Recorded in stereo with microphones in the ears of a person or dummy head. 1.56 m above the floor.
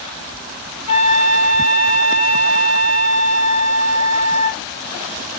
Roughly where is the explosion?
No explosion in this recording.